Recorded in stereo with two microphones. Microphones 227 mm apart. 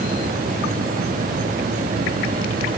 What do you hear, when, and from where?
Only background noise.